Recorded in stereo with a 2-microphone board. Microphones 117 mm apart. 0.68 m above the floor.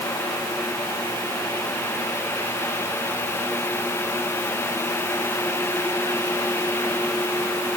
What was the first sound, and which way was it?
Only background noise.